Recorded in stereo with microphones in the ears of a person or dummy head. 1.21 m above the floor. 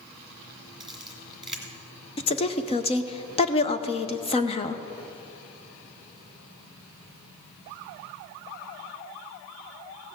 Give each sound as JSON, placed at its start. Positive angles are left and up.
{"t": 0.8, "sound": "a camera shutter", "side_deg": 0, "distance_m": 1.6}
{"t": 2.2, "sound": "a woman speaking", "side_deg": 30, "distance_m": 0.8}